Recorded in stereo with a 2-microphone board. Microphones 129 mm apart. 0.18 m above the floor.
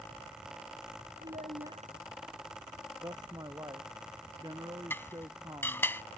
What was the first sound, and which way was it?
A child speaking, 75° right (ahead or behind).